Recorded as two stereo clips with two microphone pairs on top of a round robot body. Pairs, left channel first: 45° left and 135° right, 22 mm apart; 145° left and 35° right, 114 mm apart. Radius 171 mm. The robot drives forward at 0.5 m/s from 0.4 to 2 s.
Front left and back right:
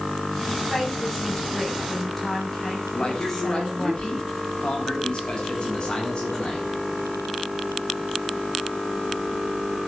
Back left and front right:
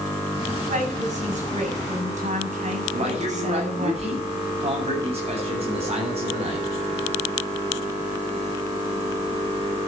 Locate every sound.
0.7 s a woman speaking: 30° right, 7 m; by 3.9 s 35° right, 6.5 m
2.9 s a man speaking: 5° right, 8.5 m